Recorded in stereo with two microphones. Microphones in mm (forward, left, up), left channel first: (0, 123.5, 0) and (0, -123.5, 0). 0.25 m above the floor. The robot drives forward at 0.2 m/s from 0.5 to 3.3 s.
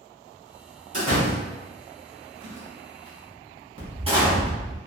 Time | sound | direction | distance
0.9 | a door slam | 30° right (ahead or behind) | 1.1 m